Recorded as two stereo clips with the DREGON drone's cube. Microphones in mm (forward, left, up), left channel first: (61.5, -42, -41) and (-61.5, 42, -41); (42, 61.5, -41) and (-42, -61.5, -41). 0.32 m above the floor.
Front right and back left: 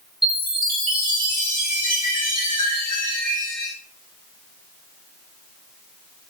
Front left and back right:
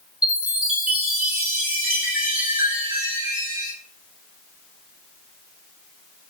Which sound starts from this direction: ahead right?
A chime, at 0.2 s.